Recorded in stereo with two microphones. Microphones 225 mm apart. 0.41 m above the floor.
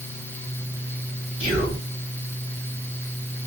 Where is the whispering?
25° right (ahead or behind), 2 m.